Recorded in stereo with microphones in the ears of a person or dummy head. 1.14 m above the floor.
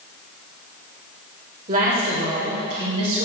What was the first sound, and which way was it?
A woman speaking, 40° right (ahead or behind).